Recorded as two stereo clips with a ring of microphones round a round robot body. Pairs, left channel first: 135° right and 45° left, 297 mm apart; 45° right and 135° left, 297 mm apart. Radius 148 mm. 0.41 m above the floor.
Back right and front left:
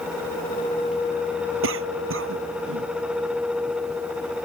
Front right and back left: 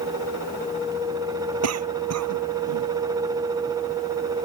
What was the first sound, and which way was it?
A cough, 95° left.